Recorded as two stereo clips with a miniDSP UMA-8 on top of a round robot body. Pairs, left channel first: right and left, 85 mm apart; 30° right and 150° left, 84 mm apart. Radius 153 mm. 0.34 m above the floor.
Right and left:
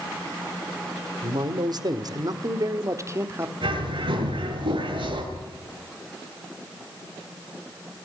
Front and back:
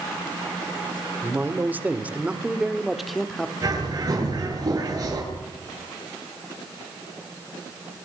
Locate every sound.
1.2 s a man speaking: 90° left, 2.5 m; by 3.5 s 50° left, 1.6 m
3.6 s a bird: 105° left, 8 m